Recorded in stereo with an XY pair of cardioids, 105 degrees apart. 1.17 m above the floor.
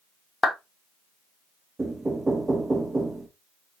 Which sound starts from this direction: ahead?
Knocking, at 1.8 s.